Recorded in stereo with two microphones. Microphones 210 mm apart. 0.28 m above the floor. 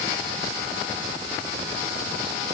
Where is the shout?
I don't hear a shout.